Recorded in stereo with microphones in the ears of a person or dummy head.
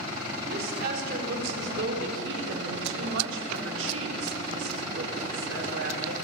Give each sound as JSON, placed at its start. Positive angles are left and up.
{"t": 0.4, "sound": "a woman speaking", "side_deg": -60, "distance_m": 5.0}